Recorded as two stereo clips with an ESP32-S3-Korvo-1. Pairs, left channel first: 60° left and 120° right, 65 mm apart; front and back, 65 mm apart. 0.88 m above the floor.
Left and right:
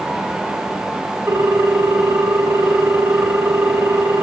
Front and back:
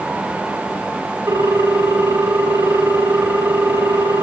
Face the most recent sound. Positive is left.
turn(degrees=-165)